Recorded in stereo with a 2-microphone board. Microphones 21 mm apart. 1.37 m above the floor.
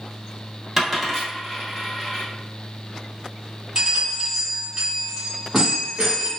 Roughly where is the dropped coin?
Centre.